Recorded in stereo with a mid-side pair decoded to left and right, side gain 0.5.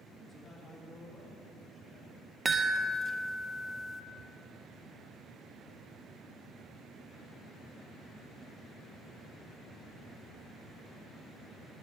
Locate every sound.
0.3 s a man speaking: 25° left, 2.5 m
2.5 s a chime: 20° right, 0.7 m